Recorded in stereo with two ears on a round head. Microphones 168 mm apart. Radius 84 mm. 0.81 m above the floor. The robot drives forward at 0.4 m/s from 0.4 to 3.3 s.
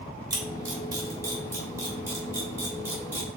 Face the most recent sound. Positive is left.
turn(degrees=-10)  # may be behind; listen again after turning